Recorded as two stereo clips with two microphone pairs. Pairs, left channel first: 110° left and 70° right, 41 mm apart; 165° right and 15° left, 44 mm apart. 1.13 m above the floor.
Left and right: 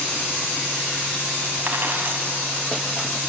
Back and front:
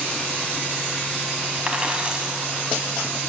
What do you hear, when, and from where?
1.7 s a dropped coin: 45° right, 2 m